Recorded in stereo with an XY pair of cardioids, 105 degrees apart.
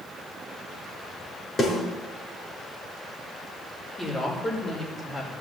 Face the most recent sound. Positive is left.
turn(degrees=20)